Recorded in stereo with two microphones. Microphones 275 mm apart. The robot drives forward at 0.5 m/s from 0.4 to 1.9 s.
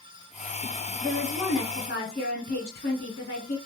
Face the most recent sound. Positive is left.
turn(degrees=30)  # may be behind; listen again after turning